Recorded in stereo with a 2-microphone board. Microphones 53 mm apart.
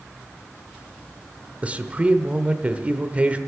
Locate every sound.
1.6 s a man speaking: 30° right (ahead or behind), 0.9 m